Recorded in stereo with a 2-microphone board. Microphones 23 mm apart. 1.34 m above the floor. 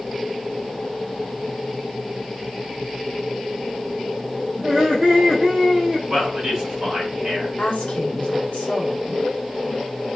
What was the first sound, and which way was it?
Laughter, 45° right (ahead or behind).